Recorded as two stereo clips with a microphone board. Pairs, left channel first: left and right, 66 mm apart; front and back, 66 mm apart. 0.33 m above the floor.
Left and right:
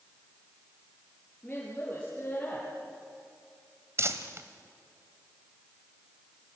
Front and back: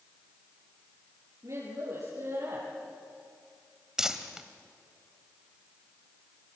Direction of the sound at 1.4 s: 155° left.